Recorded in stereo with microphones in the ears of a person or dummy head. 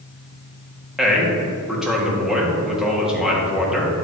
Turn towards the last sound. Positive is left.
turn(degrees=-5)  # may be behind; listen again after turning